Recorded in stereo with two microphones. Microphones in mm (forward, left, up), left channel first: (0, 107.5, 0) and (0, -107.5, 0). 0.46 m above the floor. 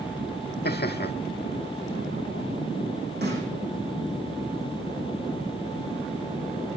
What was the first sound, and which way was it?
Laughter, 50° left (ahead or behind).